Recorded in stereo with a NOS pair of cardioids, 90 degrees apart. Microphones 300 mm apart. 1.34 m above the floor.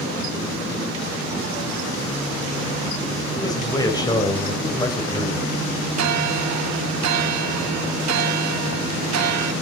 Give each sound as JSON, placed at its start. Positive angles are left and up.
{"t": 3.3, "sound": "a man speaking", "azimuth_deg": 15, "distance_m": 5.5}
{"t": 6.0, "sound": "a bell", "azimuth_deg": -60, "distance_m": 1.1}